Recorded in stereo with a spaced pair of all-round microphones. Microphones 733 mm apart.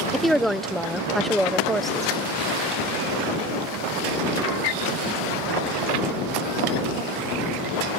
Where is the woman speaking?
Centre (ahead or behind).